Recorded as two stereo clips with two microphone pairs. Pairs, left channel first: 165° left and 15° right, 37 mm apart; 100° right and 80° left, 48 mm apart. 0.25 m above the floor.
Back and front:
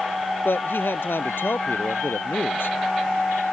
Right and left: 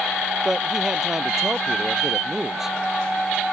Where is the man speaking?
160° left.